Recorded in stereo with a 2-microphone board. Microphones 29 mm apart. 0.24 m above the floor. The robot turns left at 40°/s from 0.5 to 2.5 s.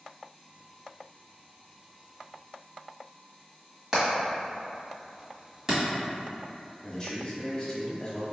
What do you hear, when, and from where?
3.9 s hammering: 20° right (ahead or behind), 1.5 m
6.8 s a man speaking: 25° left (ahead or behind), 1.1 m